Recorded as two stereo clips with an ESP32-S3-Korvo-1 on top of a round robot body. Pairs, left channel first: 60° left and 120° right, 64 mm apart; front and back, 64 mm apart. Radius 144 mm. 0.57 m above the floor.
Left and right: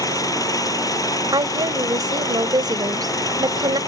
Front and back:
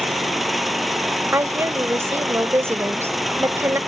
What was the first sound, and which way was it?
An engine running, 90° left.